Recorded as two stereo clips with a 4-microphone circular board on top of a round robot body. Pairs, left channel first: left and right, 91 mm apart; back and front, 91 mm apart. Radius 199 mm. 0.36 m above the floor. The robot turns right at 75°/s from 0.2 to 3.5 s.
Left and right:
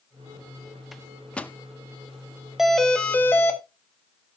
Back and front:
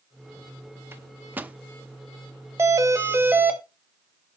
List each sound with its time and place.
0.9 s a microwave: straight ahead, 1.0 m; by 1.6 s 50° left, 1.0 m
2.6 s a doorbell: 10° right, 2 m; by 3.6 s 60° left, 2 m